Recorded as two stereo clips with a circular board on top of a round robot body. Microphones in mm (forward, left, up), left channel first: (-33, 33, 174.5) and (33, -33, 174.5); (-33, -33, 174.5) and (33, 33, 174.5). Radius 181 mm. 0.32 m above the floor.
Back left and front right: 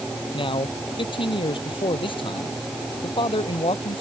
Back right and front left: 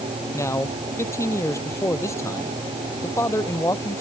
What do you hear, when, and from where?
0.3 s a man speaking: 165° left